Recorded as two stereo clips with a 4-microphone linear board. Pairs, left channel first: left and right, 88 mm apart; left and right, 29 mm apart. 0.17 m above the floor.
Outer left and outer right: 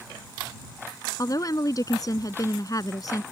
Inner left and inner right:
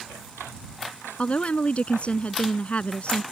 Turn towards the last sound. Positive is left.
turn(degrees=45)  # may be behind; listen again after turning